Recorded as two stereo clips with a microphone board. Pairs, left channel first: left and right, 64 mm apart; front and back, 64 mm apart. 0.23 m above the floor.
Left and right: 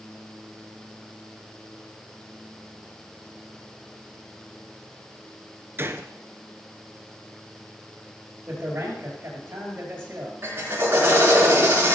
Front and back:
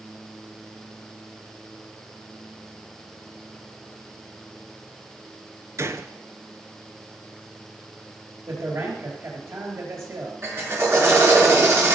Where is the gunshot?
140° right, 0.8 m.